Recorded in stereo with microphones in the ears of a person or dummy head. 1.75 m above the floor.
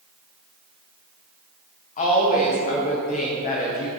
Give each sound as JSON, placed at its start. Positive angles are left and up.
{"t": 2.0, "sound": "a woman speaking", "side_deg": 40, "distance_m": 1.2}